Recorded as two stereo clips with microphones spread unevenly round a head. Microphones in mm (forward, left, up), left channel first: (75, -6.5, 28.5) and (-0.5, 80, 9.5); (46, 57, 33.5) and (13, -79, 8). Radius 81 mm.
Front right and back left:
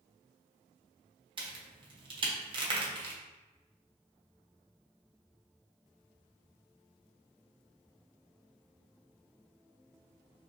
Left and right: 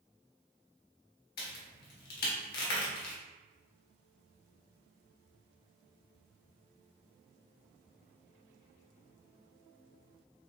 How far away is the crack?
About 1.2 m.